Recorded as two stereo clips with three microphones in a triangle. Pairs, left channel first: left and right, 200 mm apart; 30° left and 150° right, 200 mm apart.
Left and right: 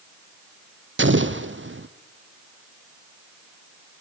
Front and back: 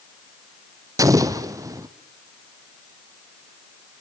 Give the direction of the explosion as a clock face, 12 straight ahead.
3 o'clock.